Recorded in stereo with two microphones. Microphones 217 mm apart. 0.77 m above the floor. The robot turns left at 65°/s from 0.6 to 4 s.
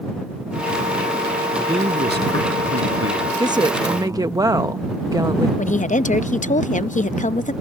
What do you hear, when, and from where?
1.6 s a man speaking: 10° right; by 4.4 s 170° right
3.4 s a woman speaking: 20° right (ahead or behind); by 5.5 s 15° right (ahead or behind)
5.6 s a woman speaking: 35° left (ahead or behind)